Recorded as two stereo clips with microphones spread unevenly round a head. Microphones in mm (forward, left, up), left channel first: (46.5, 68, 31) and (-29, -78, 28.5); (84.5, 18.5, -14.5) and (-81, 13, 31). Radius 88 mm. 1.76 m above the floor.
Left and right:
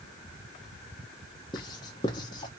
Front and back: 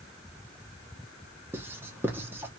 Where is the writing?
125° left, 1.0 m.